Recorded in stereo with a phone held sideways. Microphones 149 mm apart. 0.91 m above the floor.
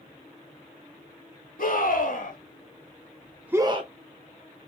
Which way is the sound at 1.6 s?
75° left (ahead or behind).